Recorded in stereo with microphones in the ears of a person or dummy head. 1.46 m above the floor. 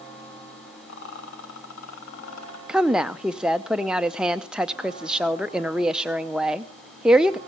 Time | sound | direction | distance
0.9 | a rattle | 75° left (ahead or behind) | 3 m
2.7 | a woman speaking | centre (ahead or behind) | 0.6 m